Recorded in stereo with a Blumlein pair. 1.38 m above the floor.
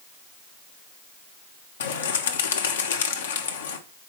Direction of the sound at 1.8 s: 60° left.